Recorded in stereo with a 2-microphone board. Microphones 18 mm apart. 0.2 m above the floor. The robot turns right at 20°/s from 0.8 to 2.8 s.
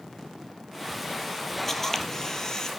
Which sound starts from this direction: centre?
A camera shutter, at 1.7 s.